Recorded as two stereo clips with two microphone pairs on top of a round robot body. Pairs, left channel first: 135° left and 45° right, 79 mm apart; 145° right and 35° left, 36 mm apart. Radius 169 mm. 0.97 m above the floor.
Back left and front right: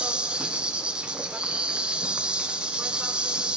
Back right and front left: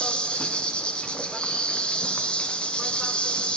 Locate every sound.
0.0 s an insect: 115° right, 1.1 m